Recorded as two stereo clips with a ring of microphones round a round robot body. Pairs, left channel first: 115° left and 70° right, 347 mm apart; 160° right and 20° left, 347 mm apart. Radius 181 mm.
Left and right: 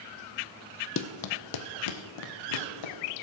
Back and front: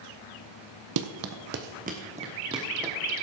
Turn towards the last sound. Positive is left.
turn(degrees=105)